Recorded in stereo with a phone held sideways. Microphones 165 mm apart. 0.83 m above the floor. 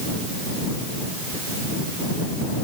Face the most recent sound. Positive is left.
No sound to turn to.